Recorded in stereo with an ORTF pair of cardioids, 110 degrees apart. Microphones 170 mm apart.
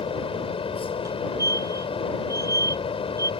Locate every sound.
0.0 s a fan: 35° left
1.1 s a fire alarm: 20° right